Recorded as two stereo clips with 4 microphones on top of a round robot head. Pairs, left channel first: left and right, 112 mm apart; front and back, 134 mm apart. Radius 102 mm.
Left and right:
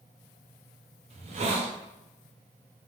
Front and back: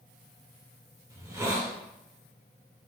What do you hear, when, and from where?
1.1 s a hiss: 110° right, 0.7 m